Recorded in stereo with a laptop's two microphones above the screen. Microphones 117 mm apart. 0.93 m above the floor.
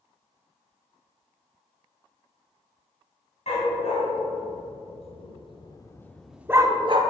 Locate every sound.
3.5 s a dog barking: 65° left (ahead or behind), 2 m; by 7.0 s 50° right (ahead or behind), 0.7 m